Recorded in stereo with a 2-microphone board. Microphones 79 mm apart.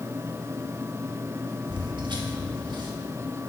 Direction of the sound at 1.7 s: 80° right.